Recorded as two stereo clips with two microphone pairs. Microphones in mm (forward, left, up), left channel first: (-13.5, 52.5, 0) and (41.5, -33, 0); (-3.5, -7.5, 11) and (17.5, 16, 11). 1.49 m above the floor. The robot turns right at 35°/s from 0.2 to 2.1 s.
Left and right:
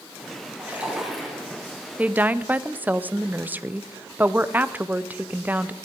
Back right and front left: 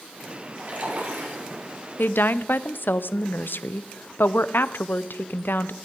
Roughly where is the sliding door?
I don't hear a sliding door.